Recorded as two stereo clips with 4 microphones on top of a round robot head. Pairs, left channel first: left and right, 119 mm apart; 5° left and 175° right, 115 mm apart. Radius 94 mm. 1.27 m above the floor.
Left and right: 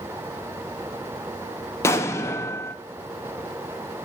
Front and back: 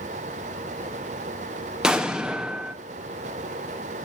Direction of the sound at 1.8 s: 110° left.